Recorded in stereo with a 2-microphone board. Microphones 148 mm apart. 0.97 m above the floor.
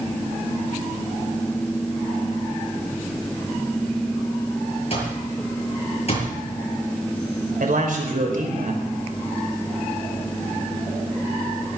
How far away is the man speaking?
About 4 m.